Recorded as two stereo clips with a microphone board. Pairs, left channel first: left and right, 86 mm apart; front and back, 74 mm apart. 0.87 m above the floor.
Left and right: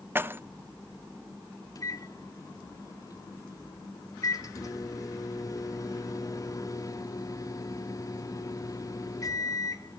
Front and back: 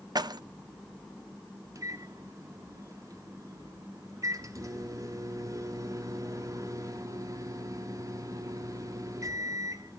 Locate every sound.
0.1 s keys jangling: 155° right, 0.7 m
1.8 s a microwave: 140° left, 1.4 m